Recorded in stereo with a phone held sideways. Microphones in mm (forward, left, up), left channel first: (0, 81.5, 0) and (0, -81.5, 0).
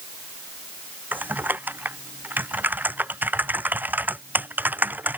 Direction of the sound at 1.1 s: 10° right (ahead or behind).